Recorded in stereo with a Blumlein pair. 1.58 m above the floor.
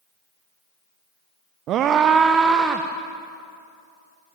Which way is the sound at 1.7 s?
35° right.